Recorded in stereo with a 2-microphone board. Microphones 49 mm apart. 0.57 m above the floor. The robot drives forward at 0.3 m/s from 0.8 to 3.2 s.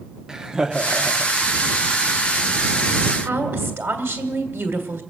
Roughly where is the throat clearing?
I don't hear throat clearing.